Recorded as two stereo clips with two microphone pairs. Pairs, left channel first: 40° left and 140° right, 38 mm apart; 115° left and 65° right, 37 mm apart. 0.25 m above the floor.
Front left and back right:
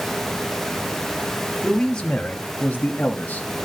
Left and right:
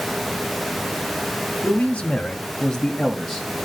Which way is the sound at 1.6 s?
110° left.